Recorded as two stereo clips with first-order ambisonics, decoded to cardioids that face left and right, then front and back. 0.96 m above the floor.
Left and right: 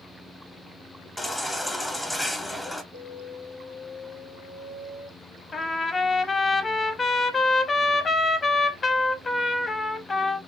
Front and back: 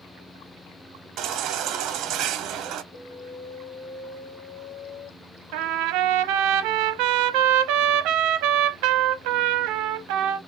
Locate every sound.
1.2 s a baby crying: 170° left, 0.8 m
2.9 s an alarm: 35° right, 2.5 m
5.5 s a trumpet: 160° left, 0.7 m